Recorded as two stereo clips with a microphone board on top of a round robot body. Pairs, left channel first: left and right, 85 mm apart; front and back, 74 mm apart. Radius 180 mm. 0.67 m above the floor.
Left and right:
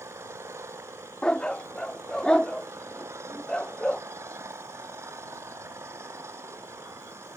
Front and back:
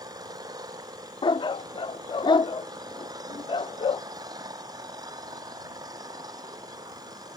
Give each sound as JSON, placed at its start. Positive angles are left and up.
{"t": 0.0, "sound": "an engine running", "azimuth_deg": -150}
{"t": 1.2, "sound": "a dog barking", "azimuth_deg": 10}